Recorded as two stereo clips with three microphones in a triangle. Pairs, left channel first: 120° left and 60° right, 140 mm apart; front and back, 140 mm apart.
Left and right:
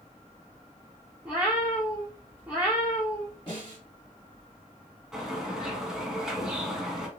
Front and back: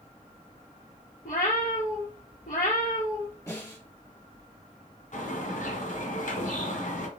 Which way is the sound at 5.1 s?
25° left.